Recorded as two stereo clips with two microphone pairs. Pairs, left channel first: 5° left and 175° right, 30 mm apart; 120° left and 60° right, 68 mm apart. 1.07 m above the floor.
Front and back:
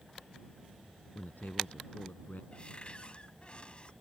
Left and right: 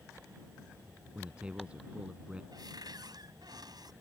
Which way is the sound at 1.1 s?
15° left.